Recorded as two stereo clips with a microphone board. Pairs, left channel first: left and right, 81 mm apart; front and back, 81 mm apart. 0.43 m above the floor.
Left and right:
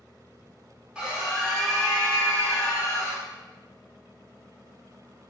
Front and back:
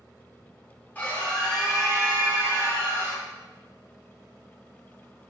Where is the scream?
30° right, 0.9 m; by 3.2 s 140° left, 1.2 m.